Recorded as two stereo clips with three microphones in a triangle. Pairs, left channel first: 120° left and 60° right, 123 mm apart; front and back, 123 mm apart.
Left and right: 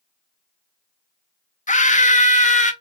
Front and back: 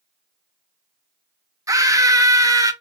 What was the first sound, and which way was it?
A scream, 120° left.